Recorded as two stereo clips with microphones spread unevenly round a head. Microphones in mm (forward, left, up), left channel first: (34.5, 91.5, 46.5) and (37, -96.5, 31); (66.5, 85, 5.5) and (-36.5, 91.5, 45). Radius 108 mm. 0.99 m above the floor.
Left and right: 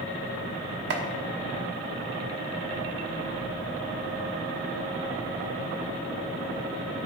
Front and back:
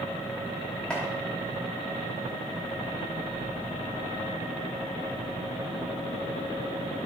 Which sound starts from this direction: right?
Chopping, at 0.9 s.